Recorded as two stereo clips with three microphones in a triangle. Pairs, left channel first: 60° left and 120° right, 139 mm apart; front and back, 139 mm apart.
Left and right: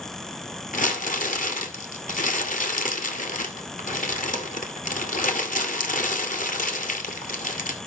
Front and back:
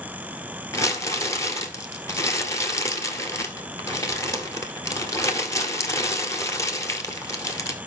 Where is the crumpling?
70° left, 1.5 m.